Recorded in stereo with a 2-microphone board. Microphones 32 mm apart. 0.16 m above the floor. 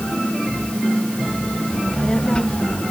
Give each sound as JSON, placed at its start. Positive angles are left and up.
{"t": 1.7, "sound": "a child speaking", "side_deg": 25}